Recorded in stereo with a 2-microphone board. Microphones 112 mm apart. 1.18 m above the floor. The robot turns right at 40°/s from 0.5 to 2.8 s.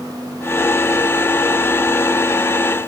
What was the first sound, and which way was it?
Only background noise.